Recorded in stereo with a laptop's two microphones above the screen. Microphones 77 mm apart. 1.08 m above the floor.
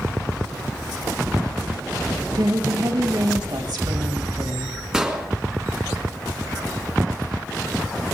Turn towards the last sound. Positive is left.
turn(degrees=-10)  # may be behind; listen again after turning